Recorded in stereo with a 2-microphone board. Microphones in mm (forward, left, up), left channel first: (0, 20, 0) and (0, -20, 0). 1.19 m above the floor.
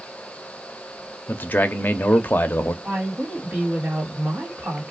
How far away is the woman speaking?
About 1.6 m.